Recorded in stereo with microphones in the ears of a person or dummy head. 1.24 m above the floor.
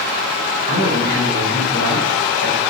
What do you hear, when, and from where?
0.7 s a man speaking: 70° right (ahead or behind), 3 m